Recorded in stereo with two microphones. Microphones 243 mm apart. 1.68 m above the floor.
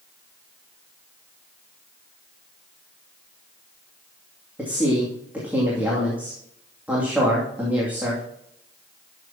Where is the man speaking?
5° right (ahead or behind), 2.5 m.